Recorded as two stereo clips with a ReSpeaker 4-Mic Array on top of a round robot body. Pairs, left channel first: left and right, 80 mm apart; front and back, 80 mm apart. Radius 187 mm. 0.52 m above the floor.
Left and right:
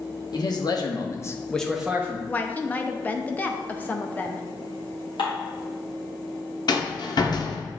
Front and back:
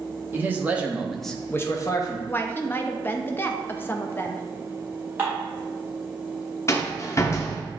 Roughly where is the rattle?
Ahead left.